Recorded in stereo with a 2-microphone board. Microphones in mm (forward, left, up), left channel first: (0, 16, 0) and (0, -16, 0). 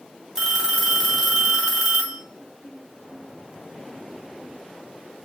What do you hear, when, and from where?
0.3 s a phone ringing: 10° right (ahead or behind), 1.1 m